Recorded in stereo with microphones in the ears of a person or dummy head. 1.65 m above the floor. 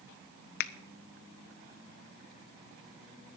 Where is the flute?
I don't hear a flute.